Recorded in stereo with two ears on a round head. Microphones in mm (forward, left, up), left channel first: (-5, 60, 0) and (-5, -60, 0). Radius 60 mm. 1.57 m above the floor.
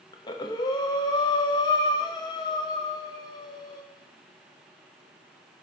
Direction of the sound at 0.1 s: 30° left (ahead or behind).